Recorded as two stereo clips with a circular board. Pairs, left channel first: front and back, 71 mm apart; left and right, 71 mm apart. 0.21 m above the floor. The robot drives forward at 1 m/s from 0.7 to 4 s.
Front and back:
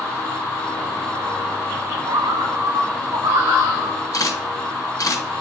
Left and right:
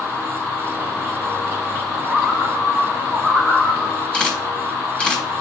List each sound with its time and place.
2.1 s a bird: 170° right, 0.5 m; by 4.0 s straight behind, 2.5 m
4.1 s a camera shutter: 15° left, 3 m